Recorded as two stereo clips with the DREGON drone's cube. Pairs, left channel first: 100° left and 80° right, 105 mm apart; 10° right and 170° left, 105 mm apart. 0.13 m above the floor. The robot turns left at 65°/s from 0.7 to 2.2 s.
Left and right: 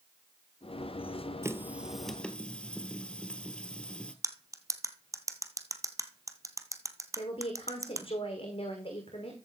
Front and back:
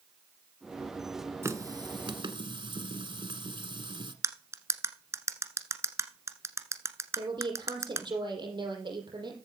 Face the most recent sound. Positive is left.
turn(degrees=125)